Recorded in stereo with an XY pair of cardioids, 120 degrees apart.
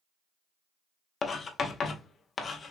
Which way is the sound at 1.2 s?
40° left.